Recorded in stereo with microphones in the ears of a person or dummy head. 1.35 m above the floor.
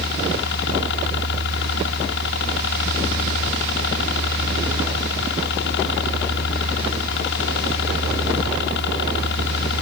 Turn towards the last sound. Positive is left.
turn(degrees=65)  # may be behind; listen again after turning